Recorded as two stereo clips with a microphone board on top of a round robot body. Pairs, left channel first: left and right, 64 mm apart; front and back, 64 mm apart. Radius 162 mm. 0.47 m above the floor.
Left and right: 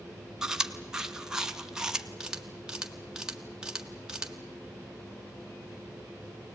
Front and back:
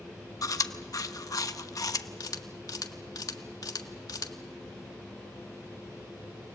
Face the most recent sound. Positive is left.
turn(degrees=-10)